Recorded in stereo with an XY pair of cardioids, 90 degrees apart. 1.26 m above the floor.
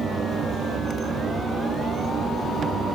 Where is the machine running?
65° right.